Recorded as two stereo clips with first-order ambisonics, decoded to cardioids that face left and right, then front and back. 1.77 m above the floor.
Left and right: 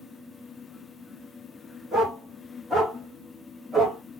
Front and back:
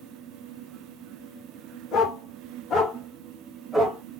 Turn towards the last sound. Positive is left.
turn(degrees=-130)